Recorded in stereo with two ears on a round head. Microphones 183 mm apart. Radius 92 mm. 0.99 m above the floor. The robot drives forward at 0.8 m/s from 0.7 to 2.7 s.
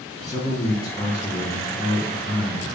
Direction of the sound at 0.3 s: 15° left (ahead or behind).